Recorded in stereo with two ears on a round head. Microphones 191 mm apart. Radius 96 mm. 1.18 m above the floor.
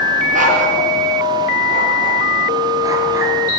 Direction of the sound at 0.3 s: 40° right (ahead or behind).